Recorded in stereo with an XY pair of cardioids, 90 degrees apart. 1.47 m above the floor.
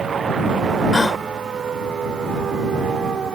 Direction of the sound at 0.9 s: 20° left.